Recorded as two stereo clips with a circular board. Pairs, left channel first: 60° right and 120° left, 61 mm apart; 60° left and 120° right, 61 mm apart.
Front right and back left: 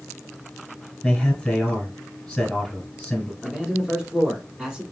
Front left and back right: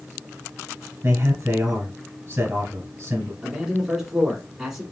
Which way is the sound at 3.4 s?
170° left.